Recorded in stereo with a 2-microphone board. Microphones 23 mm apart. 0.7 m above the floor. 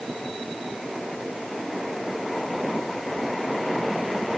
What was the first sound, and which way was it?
Only background noise.